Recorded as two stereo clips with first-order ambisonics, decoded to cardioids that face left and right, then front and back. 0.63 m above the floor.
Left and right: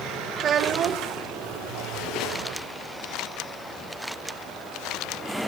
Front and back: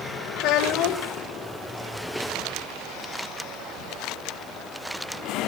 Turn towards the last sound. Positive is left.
turn(degrees=-30)